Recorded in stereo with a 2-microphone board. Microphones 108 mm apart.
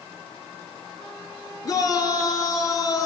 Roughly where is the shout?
Left.